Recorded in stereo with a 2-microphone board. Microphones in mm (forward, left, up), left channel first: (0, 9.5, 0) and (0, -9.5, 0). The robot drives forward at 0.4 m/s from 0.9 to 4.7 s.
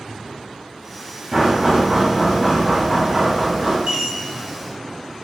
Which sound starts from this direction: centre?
Knocking, at 1.3 s.